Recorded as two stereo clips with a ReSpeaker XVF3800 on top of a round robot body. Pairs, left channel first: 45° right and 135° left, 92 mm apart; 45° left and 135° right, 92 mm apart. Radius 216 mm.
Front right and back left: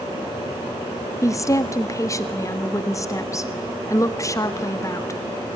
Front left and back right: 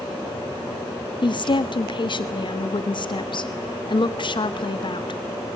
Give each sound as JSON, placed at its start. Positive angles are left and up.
{"t": 1.2, "sound": "a woman speaking", "azimuth_deg": 10, "distance_m": 1.6}